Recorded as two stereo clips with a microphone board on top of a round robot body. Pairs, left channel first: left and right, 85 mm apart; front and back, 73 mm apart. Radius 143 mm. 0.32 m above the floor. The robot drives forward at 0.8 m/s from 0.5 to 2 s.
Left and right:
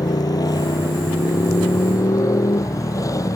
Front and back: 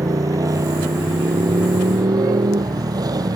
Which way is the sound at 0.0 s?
135° left.